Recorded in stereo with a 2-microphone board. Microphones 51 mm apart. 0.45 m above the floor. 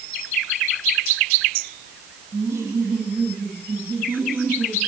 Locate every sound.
2.3 s laughter: 65° right (ahead or behind), 4.5 m; by 4.8 s 40° right (ahead or behind), 5.5 m